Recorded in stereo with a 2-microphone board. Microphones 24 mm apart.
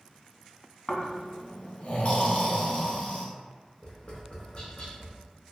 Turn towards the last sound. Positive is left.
turn(degrees=40)  # may be behind; listen again after turning